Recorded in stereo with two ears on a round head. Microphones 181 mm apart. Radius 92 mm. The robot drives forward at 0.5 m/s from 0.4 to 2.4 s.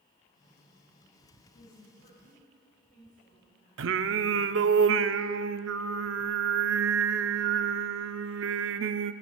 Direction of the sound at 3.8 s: 65° right (ahead or behind).